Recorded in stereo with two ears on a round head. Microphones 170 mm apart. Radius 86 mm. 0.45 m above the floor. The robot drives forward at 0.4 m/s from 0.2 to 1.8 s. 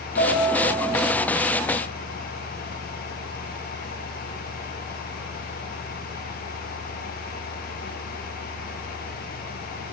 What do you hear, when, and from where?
0.2 s a piano: 55° left (ahead or behind), 2.0 m; by 1.1 s 45° left (ahead or behind), 2 m